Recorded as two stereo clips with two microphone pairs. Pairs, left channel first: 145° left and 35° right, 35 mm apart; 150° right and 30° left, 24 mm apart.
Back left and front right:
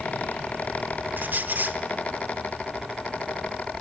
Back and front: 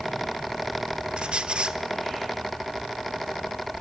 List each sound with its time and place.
1.2 s a squeak: 10° right, 1.1 m